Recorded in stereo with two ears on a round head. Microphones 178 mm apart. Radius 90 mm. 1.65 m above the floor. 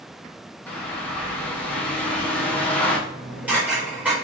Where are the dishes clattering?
5° right (ahead or behind), 5 m.